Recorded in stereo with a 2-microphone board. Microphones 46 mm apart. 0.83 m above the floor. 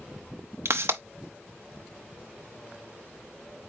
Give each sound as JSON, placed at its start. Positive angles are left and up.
{"t": 0.7, "sound": "a pop", "side_deg": -75, "distance_m": 0.7}